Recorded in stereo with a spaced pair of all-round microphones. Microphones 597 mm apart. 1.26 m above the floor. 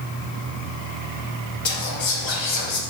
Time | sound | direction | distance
1.6 | whispering | 55° left (ahead or behind) | 0.5 m